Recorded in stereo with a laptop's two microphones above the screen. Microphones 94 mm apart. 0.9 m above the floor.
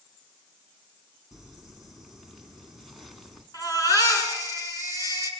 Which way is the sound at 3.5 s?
40° left (ahead or behind).